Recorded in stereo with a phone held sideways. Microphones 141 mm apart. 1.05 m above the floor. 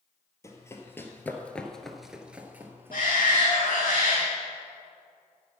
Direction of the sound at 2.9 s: 85° left.